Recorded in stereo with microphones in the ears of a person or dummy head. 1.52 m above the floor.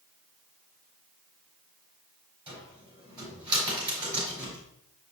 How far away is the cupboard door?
About 4 m.